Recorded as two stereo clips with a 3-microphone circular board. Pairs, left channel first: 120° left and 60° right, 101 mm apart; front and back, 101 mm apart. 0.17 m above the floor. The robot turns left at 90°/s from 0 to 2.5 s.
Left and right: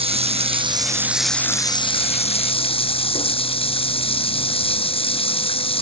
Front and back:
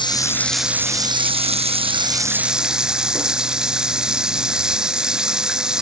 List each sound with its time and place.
0.0 s running water: 40° right; by 5.8 s 95° left